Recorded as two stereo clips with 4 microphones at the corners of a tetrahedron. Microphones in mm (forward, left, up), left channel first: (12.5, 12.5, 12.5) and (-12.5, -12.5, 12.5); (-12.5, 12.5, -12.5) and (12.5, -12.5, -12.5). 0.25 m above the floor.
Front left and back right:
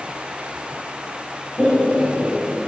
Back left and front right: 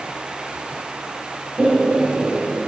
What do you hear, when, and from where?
1.6 s laughter: 5° left, 3 m; by 2.6 s 10° right, 3 m